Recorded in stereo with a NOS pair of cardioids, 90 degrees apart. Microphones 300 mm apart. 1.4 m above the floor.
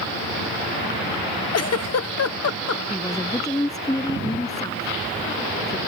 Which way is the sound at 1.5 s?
55° left.